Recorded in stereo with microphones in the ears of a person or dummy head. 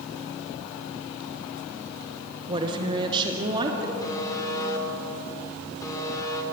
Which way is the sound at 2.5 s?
30° right (ahead or behind).